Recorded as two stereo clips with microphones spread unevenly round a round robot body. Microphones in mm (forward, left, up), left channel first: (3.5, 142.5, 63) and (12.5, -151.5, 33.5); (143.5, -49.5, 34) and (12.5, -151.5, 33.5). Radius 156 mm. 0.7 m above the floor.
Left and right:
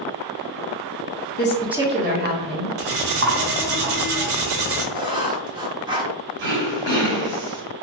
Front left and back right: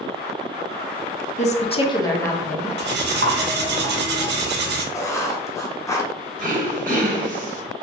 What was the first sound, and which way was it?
A woman speaking, 45° left.